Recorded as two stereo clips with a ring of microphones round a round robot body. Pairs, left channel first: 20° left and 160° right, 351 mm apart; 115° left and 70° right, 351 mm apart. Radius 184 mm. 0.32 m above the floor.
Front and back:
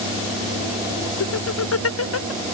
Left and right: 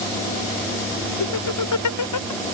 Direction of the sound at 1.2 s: 75° left.